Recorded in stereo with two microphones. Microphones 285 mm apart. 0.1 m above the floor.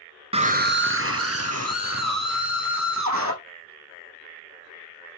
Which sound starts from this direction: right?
A scream, at 0.3 s.